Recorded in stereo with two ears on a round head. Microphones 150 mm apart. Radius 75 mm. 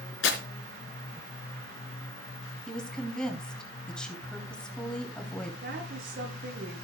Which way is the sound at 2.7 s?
5° left (ahead or behind).